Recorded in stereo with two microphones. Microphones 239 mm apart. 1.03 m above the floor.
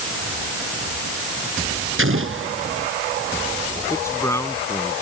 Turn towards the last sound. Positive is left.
turn(degrees=10)  # may be behind; listen again after turning